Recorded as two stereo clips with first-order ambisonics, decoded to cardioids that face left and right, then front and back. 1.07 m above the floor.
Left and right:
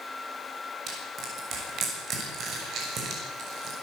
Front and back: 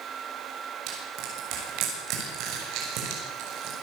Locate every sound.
0.9 s crushing: 145° right, 7 m